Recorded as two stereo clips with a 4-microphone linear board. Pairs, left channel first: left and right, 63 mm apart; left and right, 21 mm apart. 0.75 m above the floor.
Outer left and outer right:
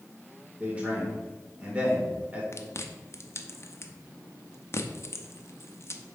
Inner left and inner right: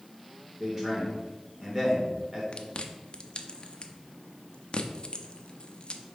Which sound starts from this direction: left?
Chewing, at 2.5 s.